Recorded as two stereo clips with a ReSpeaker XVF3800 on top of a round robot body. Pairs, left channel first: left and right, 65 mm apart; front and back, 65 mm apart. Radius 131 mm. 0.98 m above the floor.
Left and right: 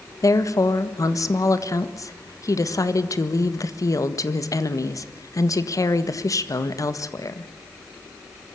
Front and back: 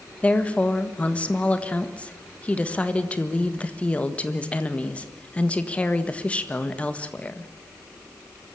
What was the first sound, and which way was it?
A woman speaking, 70° left.